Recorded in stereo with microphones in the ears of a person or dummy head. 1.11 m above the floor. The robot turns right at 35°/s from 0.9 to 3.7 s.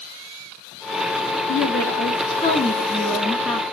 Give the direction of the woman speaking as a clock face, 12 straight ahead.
8 o'clock.